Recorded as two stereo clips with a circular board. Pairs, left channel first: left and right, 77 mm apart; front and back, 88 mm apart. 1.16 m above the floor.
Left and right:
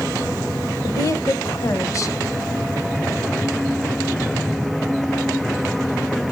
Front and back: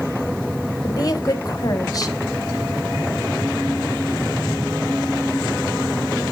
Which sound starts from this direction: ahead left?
A woman speaking, at 0.8 s.